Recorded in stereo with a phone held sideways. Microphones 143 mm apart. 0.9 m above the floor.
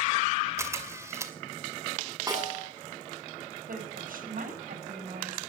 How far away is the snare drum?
About 8.5 m.